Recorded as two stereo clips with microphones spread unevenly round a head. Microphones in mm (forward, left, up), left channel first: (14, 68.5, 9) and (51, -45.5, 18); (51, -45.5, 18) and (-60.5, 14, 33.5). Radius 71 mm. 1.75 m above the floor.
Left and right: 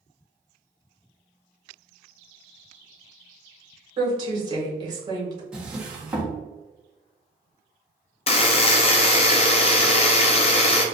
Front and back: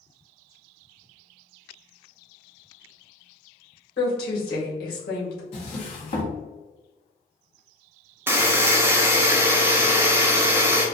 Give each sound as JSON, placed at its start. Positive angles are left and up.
{"t": 4.0, "sound": "a woman speaking", "azimuth_deg": -20, "distance_m": 1.7}
{"t": 5.5, "sound": "a drawer", "azimuth_deg": 0, "distance_m": 0.9}
{"t": 8.3, "sound": "a buzzer", "azimuth_deg": 90, "distance_m": 0.5}